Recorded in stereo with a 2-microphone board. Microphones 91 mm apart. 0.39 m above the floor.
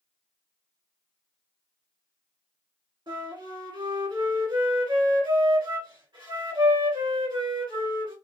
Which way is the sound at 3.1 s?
60° right (ahead or behind).